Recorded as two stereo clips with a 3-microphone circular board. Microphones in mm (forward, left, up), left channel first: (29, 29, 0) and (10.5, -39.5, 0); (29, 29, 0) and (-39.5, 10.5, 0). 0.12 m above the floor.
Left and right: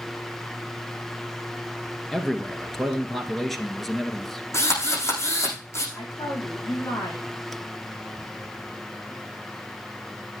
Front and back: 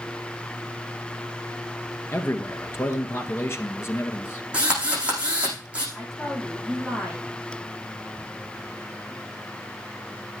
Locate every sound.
2.1 s a man speaking: 10° right, 1.4 m
4.5 s a drill: 120° left, 8 m
6.0 s a woman speaking: 105° left, 6 m